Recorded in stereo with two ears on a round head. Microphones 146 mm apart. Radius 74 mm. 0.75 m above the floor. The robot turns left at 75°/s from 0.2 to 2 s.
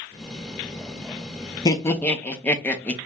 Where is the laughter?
20° left (ahead or behind), 0.6 m; by 3.0 s 10° left (ahead or behind), 0.6 m.